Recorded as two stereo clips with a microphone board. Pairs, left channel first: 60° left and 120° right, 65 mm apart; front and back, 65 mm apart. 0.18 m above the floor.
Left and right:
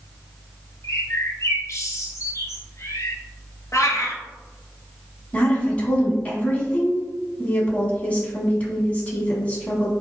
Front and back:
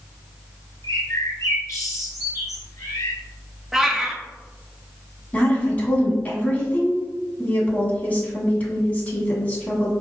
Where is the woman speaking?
25° left, 1.1 m.